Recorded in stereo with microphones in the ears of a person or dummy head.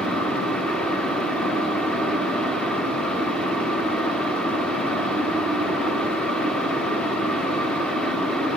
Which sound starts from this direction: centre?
A fan, at 0.0 s.